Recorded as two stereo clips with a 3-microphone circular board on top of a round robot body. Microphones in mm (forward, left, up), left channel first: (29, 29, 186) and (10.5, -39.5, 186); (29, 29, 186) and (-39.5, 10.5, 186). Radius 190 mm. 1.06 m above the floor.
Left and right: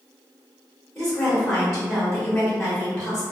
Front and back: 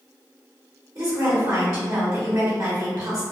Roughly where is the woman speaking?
Behind left.